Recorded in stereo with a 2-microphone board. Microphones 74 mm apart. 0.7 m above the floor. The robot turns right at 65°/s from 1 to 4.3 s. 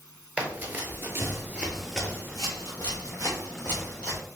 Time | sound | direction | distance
0.4 | running footsteps | 20° right (ahead or behind) | 0.8 m